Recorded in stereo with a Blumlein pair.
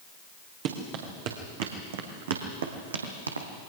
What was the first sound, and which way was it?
Running footsteps, 45° right.